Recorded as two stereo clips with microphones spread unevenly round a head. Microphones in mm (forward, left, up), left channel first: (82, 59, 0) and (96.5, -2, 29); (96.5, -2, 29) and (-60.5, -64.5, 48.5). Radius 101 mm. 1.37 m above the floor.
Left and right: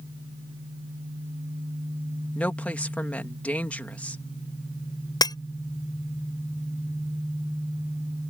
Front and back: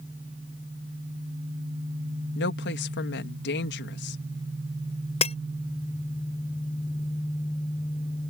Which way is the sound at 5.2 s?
85° left.